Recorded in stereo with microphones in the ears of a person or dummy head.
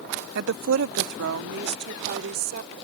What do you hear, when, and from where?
0.3 s a woman speaking: 60° right (ahead or behind); by 2.7 s 55° right (ahead or behind)